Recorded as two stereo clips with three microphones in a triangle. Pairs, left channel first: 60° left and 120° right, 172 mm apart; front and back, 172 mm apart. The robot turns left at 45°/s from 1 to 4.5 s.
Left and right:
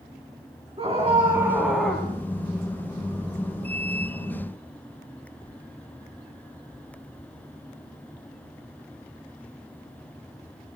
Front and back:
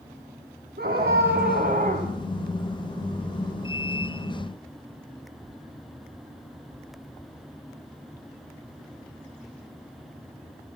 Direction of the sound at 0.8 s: 175° right.